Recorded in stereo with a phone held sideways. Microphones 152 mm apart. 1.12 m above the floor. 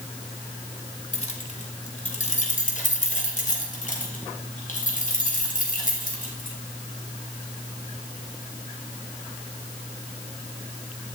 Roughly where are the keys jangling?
Left.